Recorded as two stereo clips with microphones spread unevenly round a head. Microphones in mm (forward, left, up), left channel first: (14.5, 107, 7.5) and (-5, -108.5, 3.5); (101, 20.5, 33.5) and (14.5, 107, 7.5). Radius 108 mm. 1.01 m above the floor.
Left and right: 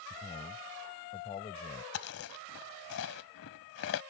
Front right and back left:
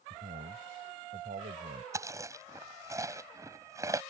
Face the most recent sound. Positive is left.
turn(degrees=65)